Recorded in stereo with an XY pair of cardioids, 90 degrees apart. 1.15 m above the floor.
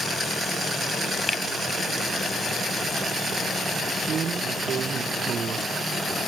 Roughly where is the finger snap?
Ahead.